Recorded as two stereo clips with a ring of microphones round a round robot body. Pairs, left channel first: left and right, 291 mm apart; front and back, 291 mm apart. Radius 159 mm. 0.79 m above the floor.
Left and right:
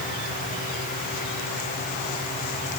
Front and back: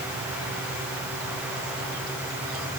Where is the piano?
No piano in this recording.